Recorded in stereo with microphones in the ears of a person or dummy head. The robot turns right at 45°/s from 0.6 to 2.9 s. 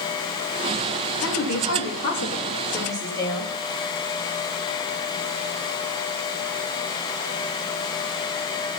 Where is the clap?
I don't hear a clap.